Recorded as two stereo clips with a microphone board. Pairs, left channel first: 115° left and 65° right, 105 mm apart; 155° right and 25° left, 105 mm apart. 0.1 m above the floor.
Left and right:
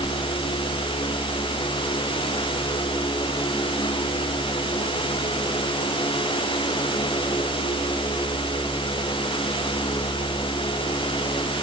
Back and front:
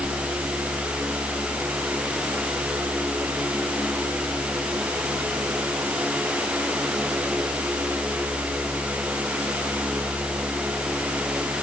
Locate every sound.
Only background noise.